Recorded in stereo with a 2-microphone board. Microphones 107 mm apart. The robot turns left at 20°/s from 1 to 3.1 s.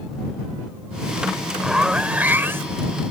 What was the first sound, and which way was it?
A zipper, 5° right (ahead or behind).